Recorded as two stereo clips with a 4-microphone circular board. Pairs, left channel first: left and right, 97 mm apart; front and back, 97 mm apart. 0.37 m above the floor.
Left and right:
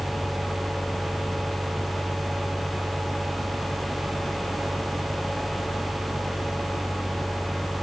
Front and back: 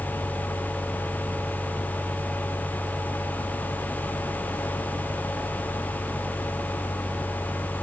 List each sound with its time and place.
Only background noise.